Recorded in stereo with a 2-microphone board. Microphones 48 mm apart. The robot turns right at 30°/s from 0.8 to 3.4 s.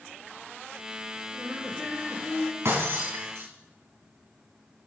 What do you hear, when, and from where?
1.3 s laughter: 155° left, 1.7 m; by 2.5 s 170° right, 1.7 m
2.6 s breaking glass: 65° right (ahead or behind), 3.5 m; by 3.5 s 85° right, 3.5 m